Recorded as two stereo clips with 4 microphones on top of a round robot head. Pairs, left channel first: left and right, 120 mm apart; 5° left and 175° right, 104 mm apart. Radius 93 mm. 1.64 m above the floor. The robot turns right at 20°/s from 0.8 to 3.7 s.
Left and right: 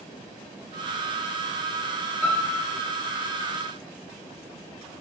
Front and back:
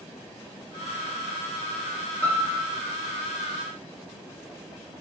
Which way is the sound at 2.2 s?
45° left.